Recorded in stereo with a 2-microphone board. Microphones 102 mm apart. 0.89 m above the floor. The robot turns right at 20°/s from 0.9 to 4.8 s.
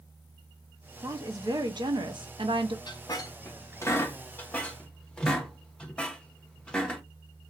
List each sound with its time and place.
1.0 s a woman speaking: 140° right, 0.6 m; by 2.8 s 105° right, 0.6 m
2.9 s a squeak: 45° left (ahead or behind), 0.6 m; by 7.0 s 10° left (ahead or behind), 0.6 m